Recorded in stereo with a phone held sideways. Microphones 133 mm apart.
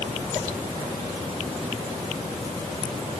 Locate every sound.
Only background noise.